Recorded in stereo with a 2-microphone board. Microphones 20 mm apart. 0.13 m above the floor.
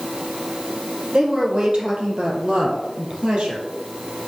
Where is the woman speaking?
50° right (ahead or behind), 4 m; by 3.7 s 70° right (ahead or behind), 3.5 m.